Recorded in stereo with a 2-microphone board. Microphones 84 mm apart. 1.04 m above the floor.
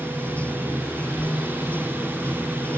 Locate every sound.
0.0 s running water: 15° left (ahead or behind)
1.2 s writing: 10° left (ahead or behind)